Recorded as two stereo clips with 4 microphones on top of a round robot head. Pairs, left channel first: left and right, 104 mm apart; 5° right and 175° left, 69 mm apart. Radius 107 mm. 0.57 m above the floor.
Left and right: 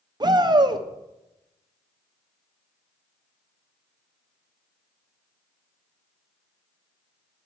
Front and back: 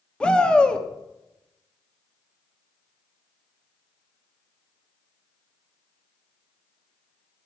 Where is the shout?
75° right, 1.2 m.